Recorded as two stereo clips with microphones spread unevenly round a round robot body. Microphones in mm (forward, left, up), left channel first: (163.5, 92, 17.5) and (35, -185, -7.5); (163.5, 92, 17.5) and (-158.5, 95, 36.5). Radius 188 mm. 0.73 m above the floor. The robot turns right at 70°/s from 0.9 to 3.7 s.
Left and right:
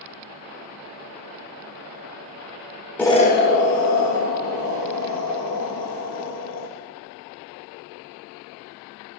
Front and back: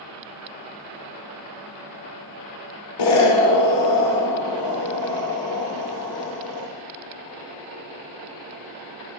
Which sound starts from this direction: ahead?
An explosion, at 3.0 s.